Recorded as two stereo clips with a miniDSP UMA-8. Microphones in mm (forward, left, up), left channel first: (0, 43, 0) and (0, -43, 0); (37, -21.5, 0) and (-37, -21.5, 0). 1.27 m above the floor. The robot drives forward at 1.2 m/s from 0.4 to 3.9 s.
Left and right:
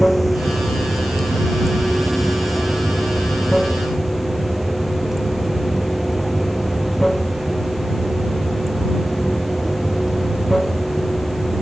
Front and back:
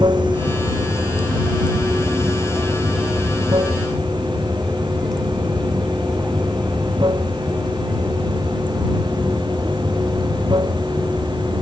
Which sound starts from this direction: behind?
Running water, at 0.0 s.